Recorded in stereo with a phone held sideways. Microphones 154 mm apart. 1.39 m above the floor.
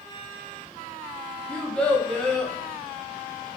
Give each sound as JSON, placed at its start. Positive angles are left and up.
{"t": 1.5, "sound": "a child speaking", "side_deg": 5, "distance_m": 0.6}